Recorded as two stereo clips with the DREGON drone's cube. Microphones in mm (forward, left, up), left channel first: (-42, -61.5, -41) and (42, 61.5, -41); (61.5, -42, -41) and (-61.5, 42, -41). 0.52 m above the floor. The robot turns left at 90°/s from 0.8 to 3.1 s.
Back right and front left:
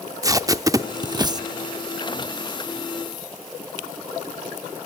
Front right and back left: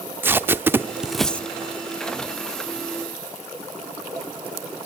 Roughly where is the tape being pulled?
Left.